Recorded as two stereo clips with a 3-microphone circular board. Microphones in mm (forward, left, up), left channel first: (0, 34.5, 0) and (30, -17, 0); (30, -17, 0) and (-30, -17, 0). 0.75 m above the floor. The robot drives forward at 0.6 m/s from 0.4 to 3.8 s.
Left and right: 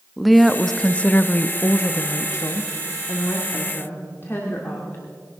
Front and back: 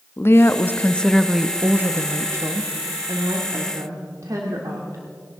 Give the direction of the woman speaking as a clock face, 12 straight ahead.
11 o'clock.